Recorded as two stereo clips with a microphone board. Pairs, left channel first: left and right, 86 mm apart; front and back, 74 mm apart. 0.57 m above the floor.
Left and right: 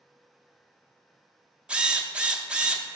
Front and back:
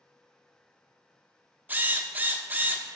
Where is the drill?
155° right, 0.8 m.